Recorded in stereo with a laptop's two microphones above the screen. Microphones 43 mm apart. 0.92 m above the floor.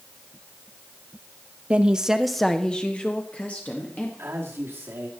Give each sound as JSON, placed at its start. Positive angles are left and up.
{"t": 1.7, "sound": "a woman speaking", "side_deg": -25, "distance_m": 0.6}
{"t": 4.2, "sound": "a man speaking", "side_deg": -70, "distance_m": 2.0}